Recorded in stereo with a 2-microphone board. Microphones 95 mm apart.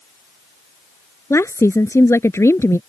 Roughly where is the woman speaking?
Left.